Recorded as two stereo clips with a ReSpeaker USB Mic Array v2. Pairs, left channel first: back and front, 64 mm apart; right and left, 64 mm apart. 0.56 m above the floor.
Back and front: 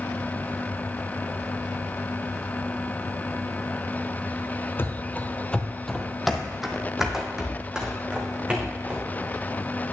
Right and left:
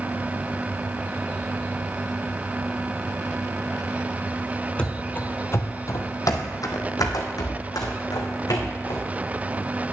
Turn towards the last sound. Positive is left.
turn(degrees=-75)